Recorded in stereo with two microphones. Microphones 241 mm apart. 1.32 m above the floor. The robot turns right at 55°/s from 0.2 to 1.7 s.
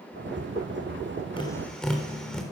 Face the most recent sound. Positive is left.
turn(degrees=5)  # may be behind; listen again after turning